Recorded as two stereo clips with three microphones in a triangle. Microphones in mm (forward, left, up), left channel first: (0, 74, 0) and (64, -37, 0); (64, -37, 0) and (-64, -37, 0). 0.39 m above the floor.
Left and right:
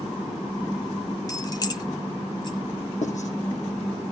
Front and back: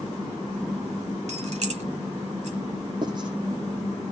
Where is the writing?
125° left, 6 m.